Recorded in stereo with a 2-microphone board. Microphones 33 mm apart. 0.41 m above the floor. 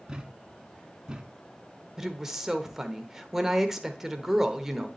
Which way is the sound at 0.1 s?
25° right (ahead or behind).